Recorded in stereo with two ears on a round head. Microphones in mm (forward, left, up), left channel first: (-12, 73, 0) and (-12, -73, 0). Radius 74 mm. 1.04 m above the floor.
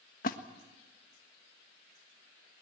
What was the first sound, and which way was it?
A splash, 50° left (ahead or behind).